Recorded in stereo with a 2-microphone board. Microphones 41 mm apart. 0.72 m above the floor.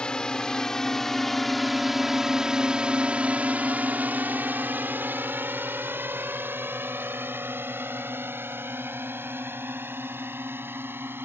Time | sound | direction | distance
0.0 | a drone | 20° left (ahead or behind) | ?